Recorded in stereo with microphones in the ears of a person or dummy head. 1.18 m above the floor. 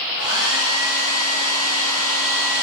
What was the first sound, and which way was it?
A hair dryer, 65° left (ahead or behind).